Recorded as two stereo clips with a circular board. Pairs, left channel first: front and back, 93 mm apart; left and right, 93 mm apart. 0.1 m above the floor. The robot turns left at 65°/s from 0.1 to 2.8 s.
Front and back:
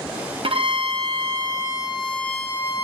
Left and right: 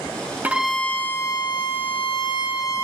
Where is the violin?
160° right, 1.7 m; by 2.8 s 45° left, 1.7 m.